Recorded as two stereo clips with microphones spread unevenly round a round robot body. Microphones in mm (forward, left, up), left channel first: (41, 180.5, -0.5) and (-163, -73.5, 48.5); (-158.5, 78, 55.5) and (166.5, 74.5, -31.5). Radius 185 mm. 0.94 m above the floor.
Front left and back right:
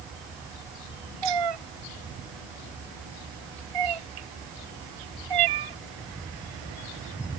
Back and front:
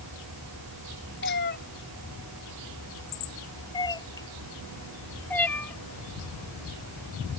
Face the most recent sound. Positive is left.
turn(degrees=-95)